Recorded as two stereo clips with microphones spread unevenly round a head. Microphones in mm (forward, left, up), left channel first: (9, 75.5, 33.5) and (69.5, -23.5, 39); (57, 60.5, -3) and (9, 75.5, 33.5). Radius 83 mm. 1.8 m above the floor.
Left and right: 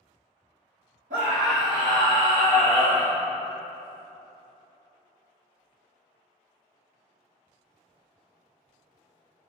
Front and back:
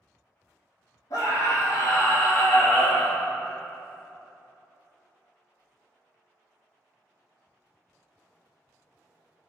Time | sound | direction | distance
1.1 | a scream | 85° right | 1.6 m